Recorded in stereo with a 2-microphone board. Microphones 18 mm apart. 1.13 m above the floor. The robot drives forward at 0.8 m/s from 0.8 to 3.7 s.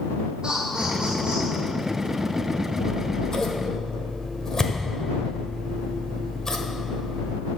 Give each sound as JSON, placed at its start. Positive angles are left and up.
{"t": 0.4, "sound": "laughter", "side_deg": -40, "distance_m": 2.5}
{"t": 2.8, "sound": "scissors", "side_deg": 50, "distance_m": 1.0}